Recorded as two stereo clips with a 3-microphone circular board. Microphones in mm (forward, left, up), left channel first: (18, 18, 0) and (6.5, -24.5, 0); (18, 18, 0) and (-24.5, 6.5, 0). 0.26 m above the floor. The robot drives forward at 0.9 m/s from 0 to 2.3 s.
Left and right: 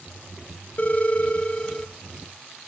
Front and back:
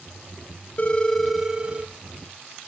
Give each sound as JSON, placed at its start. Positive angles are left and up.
{"t": 0.8, "sound": "a phone ringing", "azimuth_deg": 45, "distance_m": 0.7}